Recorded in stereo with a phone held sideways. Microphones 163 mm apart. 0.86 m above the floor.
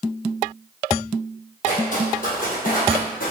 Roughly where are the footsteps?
Left.